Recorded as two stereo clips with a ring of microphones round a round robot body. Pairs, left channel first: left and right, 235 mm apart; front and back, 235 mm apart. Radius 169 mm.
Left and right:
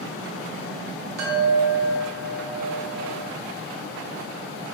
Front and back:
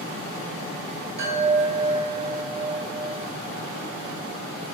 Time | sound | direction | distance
1.2 | a chime | 120° right | 0.5 m